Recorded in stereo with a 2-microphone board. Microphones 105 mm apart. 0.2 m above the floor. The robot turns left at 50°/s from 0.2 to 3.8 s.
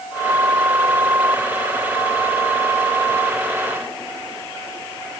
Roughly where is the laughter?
I don't hear laughter.